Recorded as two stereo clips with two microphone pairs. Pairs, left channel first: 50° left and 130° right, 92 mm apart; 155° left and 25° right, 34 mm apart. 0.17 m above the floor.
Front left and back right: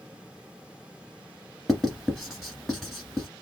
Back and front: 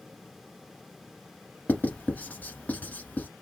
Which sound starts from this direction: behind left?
Writing, at 1.7 s.